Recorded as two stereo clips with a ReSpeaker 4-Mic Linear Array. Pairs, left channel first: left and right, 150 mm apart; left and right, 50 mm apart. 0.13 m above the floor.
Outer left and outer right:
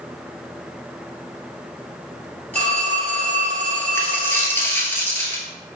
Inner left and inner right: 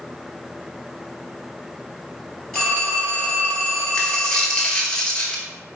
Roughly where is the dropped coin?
Centre.